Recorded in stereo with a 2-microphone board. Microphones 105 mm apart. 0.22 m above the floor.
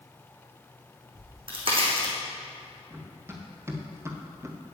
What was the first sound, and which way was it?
A crack, 60° right (ahead or behind).